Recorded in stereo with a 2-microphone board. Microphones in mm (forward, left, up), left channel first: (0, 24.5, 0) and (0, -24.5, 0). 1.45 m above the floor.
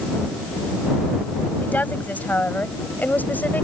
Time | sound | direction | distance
1.6 | a woman speaking | 35° left (ahead or behind) | ?